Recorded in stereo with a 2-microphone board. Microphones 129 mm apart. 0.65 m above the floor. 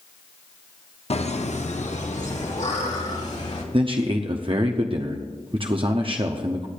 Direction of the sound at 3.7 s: 45° right (ahead or behind).